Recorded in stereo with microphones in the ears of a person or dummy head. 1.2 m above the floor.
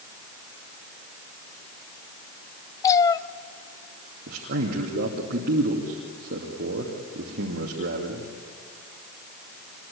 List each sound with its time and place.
2.8 s a cat meowing: 15° left (ahead or behind), 0.6 m
4.3 s a man speaking: 45° right (ahead or behind), 2.5 m